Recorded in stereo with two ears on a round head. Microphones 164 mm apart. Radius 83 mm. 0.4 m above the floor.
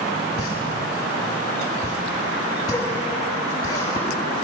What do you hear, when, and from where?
0.4 s a pop: 20° left (ahead or behind), 5.5 m